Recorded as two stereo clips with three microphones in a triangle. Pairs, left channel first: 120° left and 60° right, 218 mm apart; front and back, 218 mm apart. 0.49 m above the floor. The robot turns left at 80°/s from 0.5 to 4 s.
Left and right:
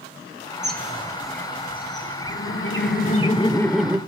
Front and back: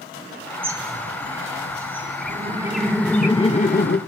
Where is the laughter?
150° left, 1.4 m; by 4.0 s 15° left, 1.4 m.